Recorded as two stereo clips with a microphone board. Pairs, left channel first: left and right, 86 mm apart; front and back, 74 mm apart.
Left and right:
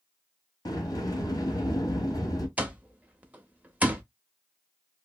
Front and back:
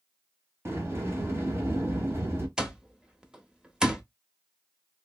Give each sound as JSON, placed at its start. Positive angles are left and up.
{"t": 0.7, "sound": "a sliding door", "azimuth_deg": 130, "distance_m": 1.1}
{"t": 2.6, "sound": "an alarm clock", "azimuth_deg": -120, "distance_m": 0.6}